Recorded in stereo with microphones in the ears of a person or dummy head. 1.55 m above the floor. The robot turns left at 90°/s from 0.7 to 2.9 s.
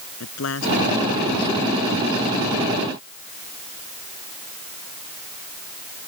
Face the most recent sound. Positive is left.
turn(degrees=-105)